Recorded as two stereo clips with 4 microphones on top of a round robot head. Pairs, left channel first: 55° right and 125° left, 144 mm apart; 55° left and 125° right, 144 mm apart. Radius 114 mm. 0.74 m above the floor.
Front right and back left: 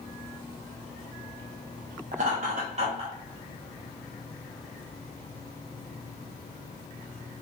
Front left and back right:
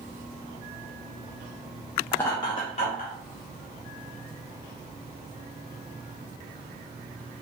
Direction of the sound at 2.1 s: 130° left.